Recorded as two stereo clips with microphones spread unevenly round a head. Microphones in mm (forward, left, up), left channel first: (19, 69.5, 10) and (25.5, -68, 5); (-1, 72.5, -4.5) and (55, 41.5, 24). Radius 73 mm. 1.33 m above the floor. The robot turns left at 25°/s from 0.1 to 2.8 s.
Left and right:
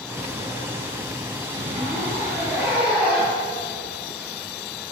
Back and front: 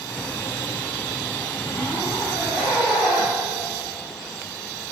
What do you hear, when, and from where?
1.5 s a zipper: 135° right, 7 m; by 4.3 s 170° right, 7 m